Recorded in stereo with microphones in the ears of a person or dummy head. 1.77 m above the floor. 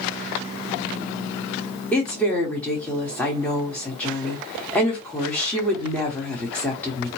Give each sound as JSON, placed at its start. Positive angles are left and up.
{"t": 1.9, "sound": "a woman speaking", "side_deg": 5, "distance_m": 1.2}